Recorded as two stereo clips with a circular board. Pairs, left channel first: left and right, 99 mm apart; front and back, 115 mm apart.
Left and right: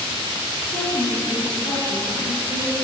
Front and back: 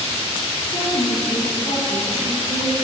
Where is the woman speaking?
35° left, 2 m; by 2.8 s 70° left, 2.5 m.